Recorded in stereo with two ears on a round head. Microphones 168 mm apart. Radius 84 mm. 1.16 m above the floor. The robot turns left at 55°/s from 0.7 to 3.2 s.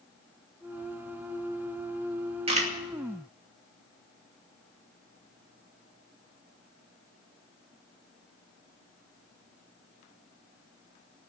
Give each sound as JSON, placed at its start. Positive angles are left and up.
{"t": 2.5, "sound": "a camera shutter", "side_deg": -30, "distance_m": 2.5}